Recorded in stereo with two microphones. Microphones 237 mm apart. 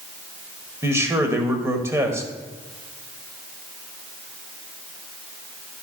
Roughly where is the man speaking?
Centre.